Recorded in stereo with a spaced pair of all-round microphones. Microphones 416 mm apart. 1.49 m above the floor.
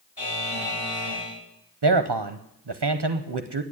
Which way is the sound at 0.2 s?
70° left (ahead or behind).